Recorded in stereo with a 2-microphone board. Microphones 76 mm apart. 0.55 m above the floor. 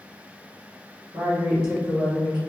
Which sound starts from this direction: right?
A woman speaking, at 1.1 s.